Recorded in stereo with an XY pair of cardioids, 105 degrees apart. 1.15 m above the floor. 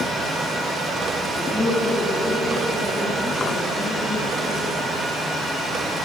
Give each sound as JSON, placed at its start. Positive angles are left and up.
{"t": 1.4, "sound": "a man speaking", "azimuth_deg": 5, "distance_m": 2.5}